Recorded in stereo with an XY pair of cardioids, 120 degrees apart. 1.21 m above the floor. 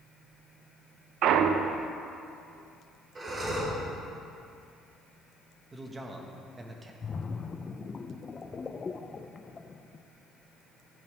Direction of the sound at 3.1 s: 30° right.